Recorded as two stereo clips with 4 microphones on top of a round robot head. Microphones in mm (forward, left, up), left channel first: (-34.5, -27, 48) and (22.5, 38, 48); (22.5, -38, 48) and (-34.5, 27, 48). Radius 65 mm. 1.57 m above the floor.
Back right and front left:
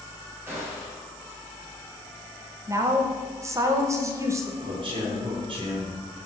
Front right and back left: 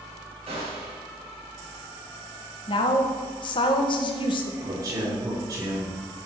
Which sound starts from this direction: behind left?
A gunshot, at 0.5 s.